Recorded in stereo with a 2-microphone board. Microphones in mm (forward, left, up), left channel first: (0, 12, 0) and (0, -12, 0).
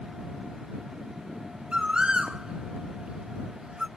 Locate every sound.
1.7 s a bird: 40° right (ahead or behind)